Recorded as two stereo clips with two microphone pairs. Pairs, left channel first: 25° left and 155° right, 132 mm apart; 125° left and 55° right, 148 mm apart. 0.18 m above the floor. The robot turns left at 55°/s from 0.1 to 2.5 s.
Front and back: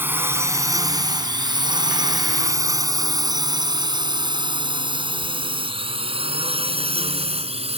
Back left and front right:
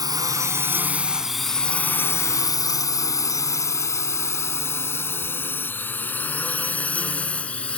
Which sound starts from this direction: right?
A drone, at 0.0 s.